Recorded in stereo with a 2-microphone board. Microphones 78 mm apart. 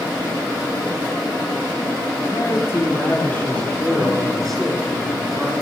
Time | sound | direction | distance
2.3 | a man speaking | 35° left (ahead or behind) | 4.5 m